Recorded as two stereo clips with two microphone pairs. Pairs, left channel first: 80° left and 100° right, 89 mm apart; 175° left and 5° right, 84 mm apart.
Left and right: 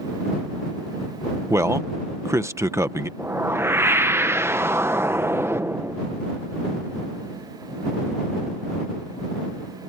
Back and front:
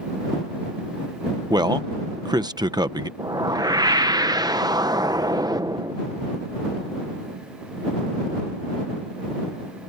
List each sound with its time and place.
1.5 s a man speaking: 45° right
3.2 s a whoosh: 40° right